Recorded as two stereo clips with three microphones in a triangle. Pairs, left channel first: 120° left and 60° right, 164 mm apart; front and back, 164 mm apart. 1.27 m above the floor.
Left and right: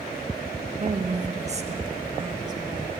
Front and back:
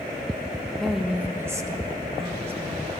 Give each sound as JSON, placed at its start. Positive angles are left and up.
{"t": 0.8, "sound": "a woman speaking", "azimuth_deg": -90, "distance_m": 1.5}